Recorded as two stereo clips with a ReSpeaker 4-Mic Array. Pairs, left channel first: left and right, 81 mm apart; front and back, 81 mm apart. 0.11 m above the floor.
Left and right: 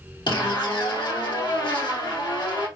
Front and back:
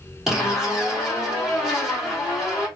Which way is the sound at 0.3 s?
95° left.